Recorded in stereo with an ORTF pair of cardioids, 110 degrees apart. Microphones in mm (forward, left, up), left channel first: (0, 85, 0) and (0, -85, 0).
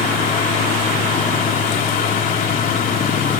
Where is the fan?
60° left.